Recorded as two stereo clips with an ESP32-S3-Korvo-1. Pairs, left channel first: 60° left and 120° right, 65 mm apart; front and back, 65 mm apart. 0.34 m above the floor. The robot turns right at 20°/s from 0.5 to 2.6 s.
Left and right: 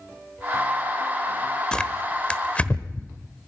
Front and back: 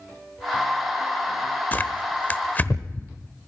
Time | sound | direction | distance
1.7 | tearing paper | straight ahead | 1.1 m